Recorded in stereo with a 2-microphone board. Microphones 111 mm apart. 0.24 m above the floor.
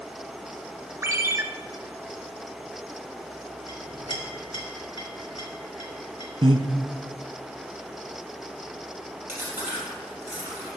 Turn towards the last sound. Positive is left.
turn(degrees=-25)  # may be behind; listen again after turning